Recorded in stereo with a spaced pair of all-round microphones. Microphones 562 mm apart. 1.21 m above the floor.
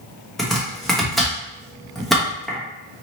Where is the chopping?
Centre (ahead or behind), 1.0 m.